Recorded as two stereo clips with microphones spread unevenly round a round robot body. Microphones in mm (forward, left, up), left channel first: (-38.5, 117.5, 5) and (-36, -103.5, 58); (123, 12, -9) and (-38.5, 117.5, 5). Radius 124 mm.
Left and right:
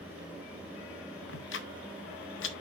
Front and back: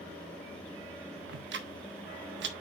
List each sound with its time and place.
1.3 s ticking: 120° left, 1.1 m